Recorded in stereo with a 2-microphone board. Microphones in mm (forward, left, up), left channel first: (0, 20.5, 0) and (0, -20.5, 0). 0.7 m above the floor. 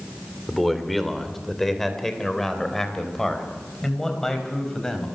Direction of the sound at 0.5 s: 5° left (ahead or behind).